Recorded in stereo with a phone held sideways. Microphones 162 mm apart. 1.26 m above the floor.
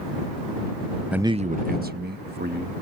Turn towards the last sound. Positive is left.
turn(degrees=-85)